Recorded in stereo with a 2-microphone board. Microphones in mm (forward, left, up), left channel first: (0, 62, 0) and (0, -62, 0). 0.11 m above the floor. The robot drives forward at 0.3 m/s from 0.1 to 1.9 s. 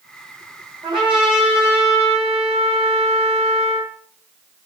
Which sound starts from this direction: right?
A trumpet, at 0.8 s.